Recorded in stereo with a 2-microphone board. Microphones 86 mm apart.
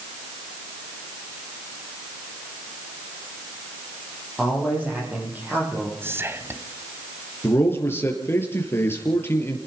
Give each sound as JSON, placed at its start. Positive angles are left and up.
{"t": 4.4, "sound": "a man speaking", "side_deg": -15, "distance_m": 9.0}
{"t": 6.0, "sound": "whispering", "side_deg": -30, "distance_m": 1.7}
{"t": 7.4, "sound": "a man speaking", "side_deg": 25, "distance_m": 4.5}